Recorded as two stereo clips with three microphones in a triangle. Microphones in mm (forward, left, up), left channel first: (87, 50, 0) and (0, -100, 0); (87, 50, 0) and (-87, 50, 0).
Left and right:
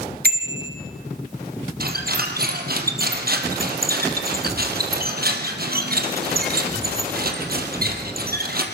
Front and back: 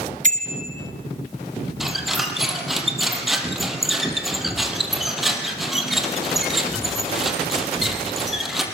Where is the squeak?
90° right, 4 m.